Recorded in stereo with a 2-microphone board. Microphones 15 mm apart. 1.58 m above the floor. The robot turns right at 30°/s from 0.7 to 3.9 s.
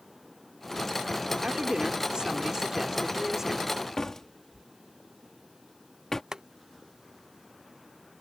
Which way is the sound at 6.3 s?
45° right (ahead or behind).